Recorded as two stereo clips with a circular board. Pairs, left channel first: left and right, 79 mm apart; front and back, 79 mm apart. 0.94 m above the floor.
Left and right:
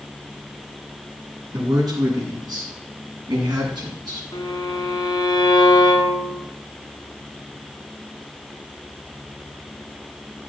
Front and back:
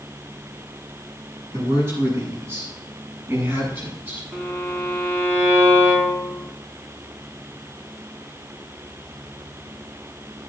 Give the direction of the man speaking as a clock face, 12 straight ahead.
4 o'clock.